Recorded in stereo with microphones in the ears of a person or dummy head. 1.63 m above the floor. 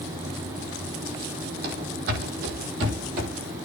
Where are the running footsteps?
55° right (ahead or behind), 3.5 m; by 3.3 s 50° right (ahead or behind), 2.5 m.